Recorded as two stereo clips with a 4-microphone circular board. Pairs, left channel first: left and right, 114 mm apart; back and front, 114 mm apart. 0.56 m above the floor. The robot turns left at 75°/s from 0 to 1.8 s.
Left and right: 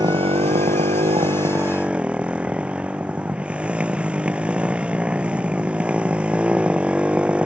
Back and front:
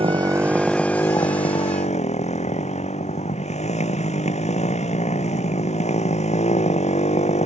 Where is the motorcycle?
35° right; by 7.5 s 170° right.